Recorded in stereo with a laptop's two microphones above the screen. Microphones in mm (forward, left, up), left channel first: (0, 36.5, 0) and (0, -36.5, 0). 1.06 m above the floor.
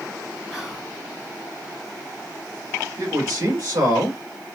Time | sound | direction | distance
0.5 | whispering | 5° right (ahead or behind) | 0.8 m
3.0 | a man speaking | 55° right (ahead or behind) | 2.5 m